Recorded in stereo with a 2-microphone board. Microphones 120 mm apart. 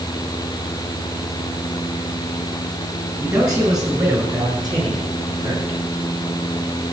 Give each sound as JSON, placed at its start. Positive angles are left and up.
{"t": 3.2, "sound": "a man speaking", "side_deg": -25, "distance_m": 6.0}